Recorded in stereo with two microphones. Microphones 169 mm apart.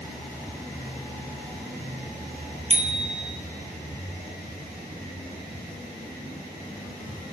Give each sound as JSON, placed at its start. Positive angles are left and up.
{"t": 2.7, "sound": "a bicycle bell", "side_deg": -35, "distance_m": 3.0}